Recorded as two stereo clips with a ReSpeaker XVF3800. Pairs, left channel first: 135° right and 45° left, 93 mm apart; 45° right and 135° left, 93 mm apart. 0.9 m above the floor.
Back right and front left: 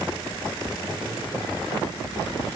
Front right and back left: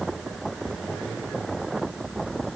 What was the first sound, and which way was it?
Only background noise.